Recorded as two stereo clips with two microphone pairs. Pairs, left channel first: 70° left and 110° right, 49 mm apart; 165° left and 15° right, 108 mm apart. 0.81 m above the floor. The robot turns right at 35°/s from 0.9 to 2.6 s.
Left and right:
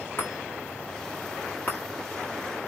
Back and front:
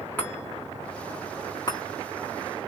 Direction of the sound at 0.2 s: 90° left.